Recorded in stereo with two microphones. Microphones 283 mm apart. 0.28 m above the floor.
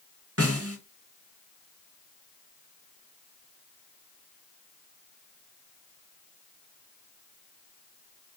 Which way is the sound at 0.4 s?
55° right (ahead or behind).